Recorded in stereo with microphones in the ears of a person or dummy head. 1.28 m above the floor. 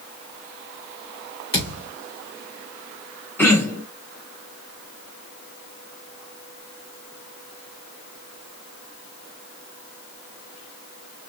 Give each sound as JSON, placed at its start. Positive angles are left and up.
{"t": 1.5, "sound": "a thud", "side_deg": 30, "distance_m": 2.0}
{"t": 3.4, "sound": "throat clearing", "side_deg": 5, "distance_m": 0.9}